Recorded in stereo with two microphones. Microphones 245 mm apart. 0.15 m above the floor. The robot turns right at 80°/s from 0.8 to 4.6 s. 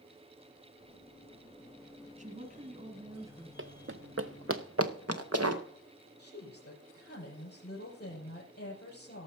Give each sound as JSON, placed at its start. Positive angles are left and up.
{"t": 2.2, "sound": "a woman speaking", "azimuth_deg": -115, "distance_m": 1.7}
{"t": 3.6, "sound": "running footsteps", "side_deg": -60, "distance_m": 0.7}
{"t": 6.2, "sound": "a woman speaking", "side_deg": 45, "distance_m": 4.5}